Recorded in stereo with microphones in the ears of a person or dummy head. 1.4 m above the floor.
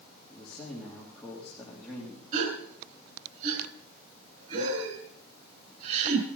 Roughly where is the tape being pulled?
I don't hear tape being pulled.